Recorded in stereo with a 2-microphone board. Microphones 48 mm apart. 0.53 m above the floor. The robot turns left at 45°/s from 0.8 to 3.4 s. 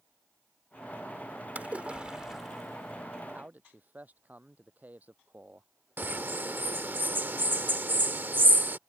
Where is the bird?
45° right (ahead or behind).